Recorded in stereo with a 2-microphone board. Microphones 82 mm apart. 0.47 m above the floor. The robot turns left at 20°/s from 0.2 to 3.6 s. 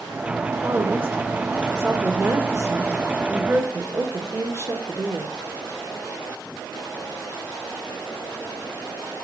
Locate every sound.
0.6 s a woman speaking: 40° right, 1.4 m; by 5.3 s 100° right, 1.4 m